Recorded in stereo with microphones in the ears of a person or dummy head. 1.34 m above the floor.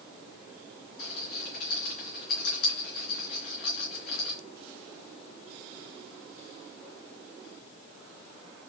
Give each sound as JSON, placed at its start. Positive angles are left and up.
{"t": 1.0, "sound": "a rattle", "side_deg": 50, "distance_m": 3.5}